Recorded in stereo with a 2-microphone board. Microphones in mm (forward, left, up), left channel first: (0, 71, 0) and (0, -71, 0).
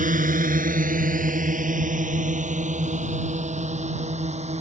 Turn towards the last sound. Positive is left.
turn(degrees=-50)  # may be behind; listen again after turning